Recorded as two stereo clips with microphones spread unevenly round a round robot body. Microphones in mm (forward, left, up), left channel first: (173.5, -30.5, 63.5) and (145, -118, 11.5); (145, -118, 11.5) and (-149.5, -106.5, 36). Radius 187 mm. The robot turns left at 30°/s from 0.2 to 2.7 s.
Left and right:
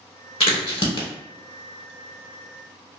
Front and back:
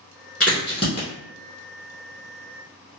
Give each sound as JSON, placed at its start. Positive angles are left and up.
{"t": 0.4, "sound": "a crack", "azimuth_deg": 85, "distance_m": 0.9}